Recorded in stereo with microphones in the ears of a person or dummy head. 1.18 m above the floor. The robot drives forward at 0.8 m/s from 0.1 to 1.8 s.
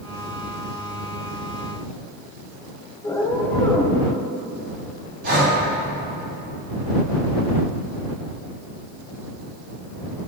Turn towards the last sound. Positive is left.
turn(degrees=-55)  # may be behind; listen again after turning